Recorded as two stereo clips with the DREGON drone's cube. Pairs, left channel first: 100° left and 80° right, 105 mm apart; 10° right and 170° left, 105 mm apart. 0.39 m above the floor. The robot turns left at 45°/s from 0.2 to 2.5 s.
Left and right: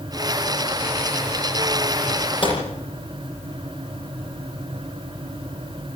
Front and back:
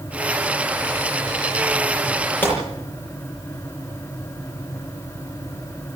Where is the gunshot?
60° left, 7.5 m; by 2.6 s 55° left, 7.5 m.